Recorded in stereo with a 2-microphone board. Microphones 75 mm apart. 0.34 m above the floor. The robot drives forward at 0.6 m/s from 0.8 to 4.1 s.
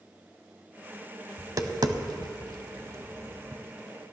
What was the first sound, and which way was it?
Tapping, 45° right (ahead or behind).